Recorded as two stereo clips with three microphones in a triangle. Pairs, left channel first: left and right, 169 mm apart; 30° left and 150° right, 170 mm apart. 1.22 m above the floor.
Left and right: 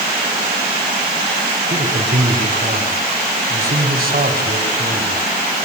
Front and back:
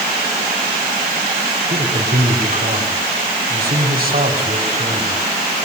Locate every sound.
1.7 s a man speaking: 120° right, 4 m